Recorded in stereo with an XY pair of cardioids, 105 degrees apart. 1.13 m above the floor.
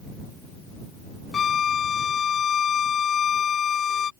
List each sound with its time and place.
1.3 s a violin: 45° left